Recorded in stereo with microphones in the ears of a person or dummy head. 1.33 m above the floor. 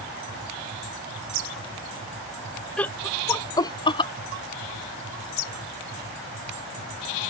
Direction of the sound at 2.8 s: 10° left (ahead or behind).